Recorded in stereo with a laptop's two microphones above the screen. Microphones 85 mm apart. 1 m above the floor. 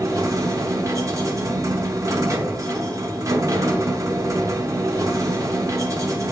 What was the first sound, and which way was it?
A machine running, 40° right (ahead or behind).